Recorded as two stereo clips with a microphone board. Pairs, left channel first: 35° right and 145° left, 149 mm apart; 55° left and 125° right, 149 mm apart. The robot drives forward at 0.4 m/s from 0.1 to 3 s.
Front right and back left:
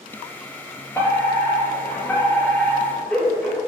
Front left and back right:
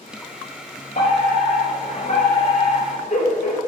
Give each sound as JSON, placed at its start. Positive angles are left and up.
{"t": 0.9, "sound": "a fire alarm", "azimuth_deg": 40, "distance_m": 4.5}